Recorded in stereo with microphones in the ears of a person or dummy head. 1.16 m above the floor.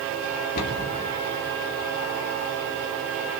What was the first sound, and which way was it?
A cupboard door, 50° left (ahead or behind).